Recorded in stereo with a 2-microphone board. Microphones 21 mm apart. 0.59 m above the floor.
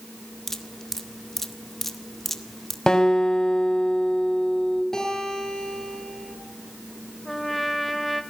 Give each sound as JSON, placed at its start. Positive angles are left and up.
{"t": 0.5, "sound": "dripping", "side_deg": 15, "distance_m": 1.8}
{"t": 2.9, "sound": "a guitar", "side_deg": 30, "distance_m": 3.5}
{"t": 4.9, "sound": "a guitar", "side_deg": 20, "distance_m": 10.0}
{"t": 7.2, "sound": "a trumpet", "side_deg": 10, "distance_m": 2.0}